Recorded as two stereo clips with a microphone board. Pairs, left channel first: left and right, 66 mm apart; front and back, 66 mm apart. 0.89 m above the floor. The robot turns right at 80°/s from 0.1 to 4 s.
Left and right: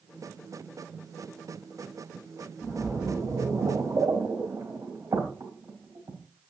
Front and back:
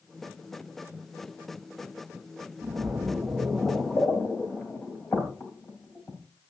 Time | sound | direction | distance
2.6 | a splash | 160° right | 3.5 m